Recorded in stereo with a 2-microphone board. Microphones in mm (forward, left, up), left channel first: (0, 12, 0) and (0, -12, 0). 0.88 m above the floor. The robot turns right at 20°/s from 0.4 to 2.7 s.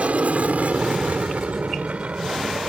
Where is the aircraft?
60° right (ahead or behind); by 2.7 s 45° right (ahead or behind).